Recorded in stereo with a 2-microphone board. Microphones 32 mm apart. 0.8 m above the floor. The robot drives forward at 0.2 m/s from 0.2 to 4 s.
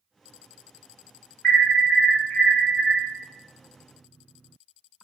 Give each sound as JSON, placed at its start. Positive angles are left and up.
{"t": 1.4, "sound": "an alarm", "side_deg": 40, "distance_m": 1.6}